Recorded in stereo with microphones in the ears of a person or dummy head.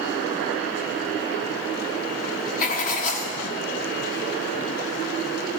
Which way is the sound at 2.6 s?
45° left (ahead or behind).